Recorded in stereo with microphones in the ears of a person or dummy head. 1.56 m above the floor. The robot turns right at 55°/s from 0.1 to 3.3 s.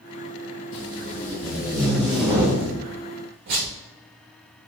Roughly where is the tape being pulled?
Left.